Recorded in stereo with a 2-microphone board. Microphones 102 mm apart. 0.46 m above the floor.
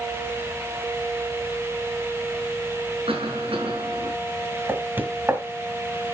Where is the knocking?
20° right (ahead or behind), 1.9 m.